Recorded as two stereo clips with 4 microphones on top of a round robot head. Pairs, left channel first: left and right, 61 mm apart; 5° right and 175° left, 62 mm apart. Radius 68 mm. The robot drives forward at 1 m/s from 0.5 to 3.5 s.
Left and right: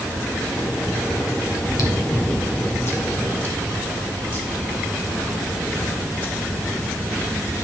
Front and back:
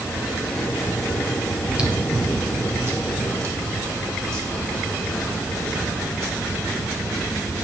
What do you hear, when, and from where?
1.6 s chewing: 100° left, 1.8 m; by 6.3 s 140° left, 3 m